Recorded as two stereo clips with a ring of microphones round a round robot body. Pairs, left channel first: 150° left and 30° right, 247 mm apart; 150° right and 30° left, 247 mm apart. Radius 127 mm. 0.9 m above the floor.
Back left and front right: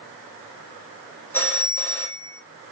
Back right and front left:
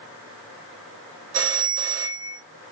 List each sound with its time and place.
1.3 s a phone ringing: 70° left, 1.0 m